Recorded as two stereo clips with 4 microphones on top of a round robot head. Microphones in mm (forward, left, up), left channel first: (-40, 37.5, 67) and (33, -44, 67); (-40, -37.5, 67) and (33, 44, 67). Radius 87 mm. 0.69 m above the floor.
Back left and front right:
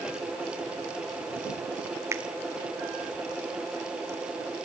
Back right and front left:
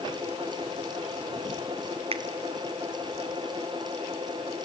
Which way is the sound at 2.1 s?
15° left.